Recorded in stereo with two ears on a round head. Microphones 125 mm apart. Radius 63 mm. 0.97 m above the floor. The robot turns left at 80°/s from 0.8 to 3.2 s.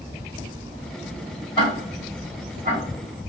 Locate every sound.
1.6 s ticking: 35° left (ahead or behind), 2 m; by 2.8 s 65° right (ahead or behind), 2 m